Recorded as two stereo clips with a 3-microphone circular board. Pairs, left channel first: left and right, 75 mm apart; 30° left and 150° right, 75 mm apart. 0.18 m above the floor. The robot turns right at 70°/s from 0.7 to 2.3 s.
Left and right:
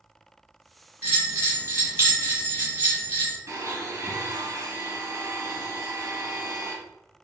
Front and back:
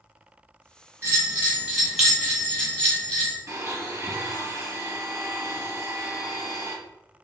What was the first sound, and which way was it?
A bell, 135° right.